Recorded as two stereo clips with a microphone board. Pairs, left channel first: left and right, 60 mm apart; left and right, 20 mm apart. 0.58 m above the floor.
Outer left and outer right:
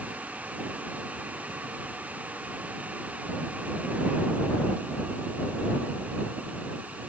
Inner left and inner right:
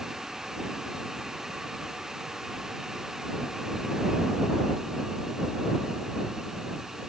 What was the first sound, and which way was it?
Only background noise.